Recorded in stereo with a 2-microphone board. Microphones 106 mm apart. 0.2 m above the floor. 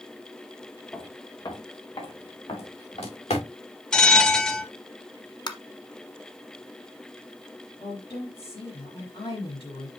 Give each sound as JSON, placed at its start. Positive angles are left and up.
{"t": 0.9, "sound": "footsteps", "side_deg": 25, "distance_m": 2.5}
{"t": 3.9, "sound": "a bell", "side_deg": 10, "distance_m": 1.1}
{"t": 5.5, "sound": "tapping", "side_deg": 45, "distance_m": 0.9}
{"t": 7.8, "sound": "a woman speaking", "side_deg": 60, "distance_m": 3.5}